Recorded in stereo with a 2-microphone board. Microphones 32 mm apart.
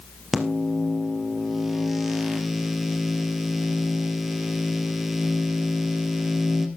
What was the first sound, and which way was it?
A microwave, 10° right (ahead or behind).